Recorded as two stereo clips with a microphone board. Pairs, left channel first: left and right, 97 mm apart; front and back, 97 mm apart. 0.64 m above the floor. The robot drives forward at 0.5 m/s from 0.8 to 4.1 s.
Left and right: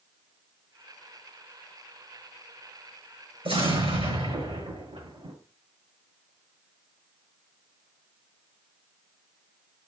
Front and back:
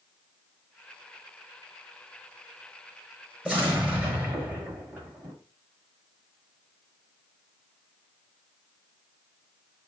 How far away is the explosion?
About 6 m.